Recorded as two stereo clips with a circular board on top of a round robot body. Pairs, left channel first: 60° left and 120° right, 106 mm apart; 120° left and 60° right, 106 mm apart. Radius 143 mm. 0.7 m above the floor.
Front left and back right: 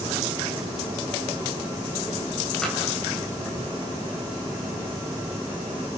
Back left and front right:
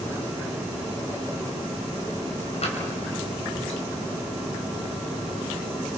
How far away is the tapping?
About 4 m.